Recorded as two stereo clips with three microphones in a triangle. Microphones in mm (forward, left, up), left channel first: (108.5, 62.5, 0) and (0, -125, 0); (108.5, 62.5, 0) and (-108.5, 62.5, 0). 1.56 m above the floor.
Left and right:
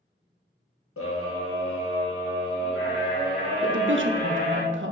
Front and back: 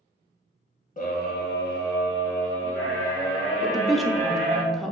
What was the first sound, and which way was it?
A scream, 55° left.